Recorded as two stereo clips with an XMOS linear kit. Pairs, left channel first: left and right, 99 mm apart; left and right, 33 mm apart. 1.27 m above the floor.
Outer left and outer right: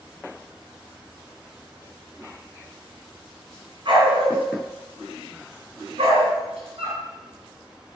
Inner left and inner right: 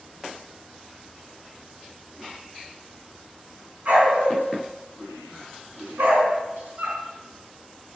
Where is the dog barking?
55° right (ahead or behind), 5 m; by 7.0 s 75° right (ahead or behind), 5 m.